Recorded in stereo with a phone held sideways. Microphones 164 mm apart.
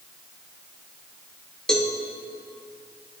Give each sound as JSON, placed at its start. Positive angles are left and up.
{"t": 1.7, "sound": "a cowbell", "side_deg": 5, "distance_m": 1.1}